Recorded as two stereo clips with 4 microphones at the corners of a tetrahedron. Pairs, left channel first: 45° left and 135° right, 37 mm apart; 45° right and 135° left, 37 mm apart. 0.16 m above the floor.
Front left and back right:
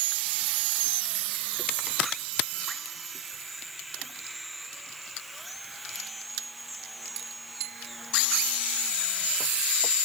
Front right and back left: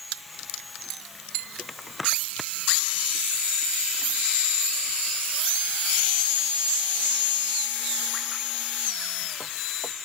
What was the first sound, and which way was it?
Only background noise.